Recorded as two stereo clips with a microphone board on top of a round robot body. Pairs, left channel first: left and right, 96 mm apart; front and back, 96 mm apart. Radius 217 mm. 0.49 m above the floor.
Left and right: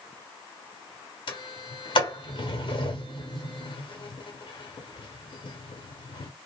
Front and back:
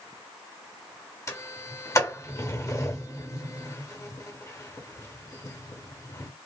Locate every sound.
1.3 s a sliding door: 60° left, 1.0 m